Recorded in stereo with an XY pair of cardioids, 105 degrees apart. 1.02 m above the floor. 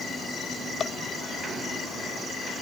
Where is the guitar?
No guitar in this recording.